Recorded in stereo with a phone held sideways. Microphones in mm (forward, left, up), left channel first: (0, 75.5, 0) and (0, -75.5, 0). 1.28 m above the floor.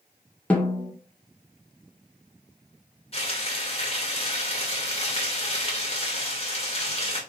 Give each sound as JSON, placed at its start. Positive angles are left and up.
{"t": 0.5, "sound": "a snare drum", "side_deg": 10, "distance_m": 1.7}
{"t": 3.1, "sound": "frying", "side_deg": 40, "distance_m": 2.0}